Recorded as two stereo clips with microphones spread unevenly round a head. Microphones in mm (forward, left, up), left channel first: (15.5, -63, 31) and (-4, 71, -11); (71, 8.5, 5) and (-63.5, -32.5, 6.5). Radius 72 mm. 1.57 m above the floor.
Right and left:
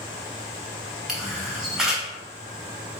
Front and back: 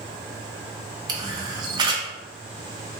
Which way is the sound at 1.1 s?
145° right.